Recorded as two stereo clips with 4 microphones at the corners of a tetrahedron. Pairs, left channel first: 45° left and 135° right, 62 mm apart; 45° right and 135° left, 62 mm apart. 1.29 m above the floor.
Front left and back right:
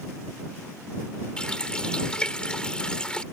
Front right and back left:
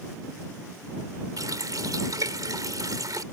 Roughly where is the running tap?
Behind left.